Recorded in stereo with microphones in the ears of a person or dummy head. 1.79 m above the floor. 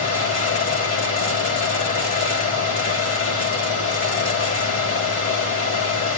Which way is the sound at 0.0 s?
40° left (ahead or behind).